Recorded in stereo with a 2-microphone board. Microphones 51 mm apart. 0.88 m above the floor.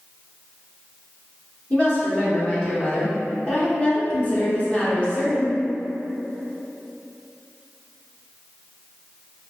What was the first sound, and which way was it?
A woman speaking, 25° left (ahead or behind).